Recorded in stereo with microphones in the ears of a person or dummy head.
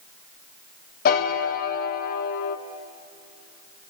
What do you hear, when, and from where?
1.1 s a piano: 50° left (ahead or behind), 1.1 m